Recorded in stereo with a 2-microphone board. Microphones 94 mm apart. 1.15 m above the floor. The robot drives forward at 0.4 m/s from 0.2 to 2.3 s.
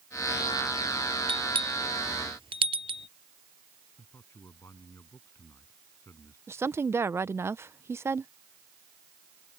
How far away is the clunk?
I don't hear a clunk.